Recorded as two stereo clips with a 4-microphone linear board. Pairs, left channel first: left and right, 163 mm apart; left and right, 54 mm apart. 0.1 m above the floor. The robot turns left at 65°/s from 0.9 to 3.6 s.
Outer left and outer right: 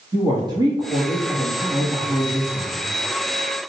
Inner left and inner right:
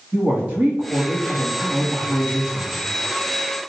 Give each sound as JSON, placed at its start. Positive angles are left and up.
{"t": 0.1, "sound": "a woman speaking", "azimuth_deg": -140, "distance_m": 1.4}